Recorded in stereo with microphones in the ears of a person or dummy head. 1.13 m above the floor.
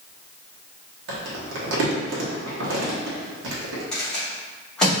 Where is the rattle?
5° left (ahead or behind), 1.5 m.